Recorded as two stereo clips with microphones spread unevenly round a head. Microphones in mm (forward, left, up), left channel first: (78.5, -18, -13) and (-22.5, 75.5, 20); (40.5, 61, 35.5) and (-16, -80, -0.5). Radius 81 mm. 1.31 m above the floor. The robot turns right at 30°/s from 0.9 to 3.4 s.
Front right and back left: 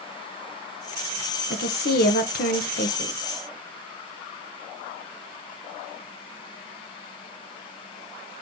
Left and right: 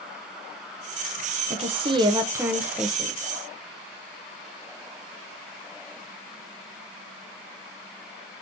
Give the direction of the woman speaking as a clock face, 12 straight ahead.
2 o'clock.